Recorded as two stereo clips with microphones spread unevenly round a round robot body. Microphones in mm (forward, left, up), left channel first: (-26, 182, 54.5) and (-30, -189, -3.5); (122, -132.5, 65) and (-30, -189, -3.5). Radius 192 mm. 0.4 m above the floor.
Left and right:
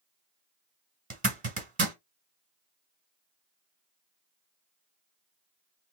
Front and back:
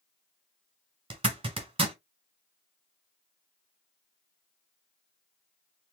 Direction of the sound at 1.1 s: 145° right.